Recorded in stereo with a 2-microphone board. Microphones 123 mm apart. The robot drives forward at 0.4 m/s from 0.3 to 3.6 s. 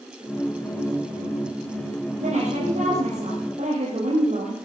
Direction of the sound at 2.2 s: 75° right (ahead or behind).